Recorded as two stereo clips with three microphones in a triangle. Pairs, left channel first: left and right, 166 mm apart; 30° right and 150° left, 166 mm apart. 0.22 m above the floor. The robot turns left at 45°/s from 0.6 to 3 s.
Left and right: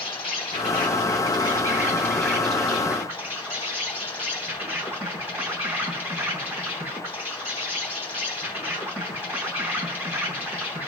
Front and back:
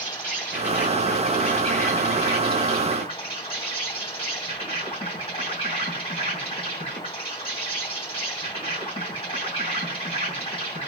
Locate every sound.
0.0 s an insect: 85° left, 2.5 m; by 10.9 s 25° right, 2.5 m